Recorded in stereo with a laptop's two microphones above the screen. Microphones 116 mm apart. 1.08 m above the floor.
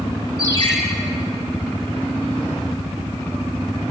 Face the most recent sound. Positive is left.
turn(degrees=35)  # may be behind; listen again after turning